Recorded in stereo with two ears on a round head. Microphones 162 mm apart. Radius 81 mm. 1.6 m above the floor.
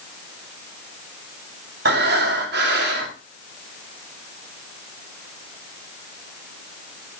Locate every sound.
1.9 s breathing: 60° right (ahead or behind), 3 m